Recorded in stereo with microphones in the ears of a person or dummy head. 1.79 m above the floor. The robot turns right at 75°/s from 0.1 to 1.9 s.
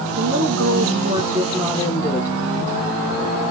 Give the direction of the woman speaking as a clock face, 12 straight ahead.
4 o'clock.